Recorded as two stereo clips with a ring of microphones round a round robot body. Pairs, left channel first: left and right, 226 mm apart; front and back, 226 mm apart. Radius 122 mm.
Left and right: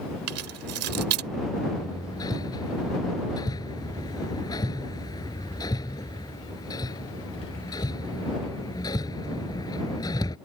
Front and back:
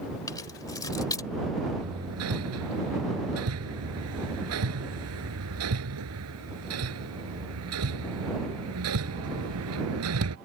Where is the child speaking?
I don't hear a child speaking.